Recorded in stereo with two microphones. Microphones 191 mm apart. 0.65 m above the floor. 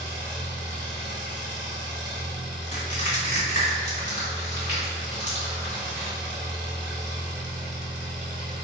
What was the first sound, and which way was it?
An engine running, 65° right (ahead or behind).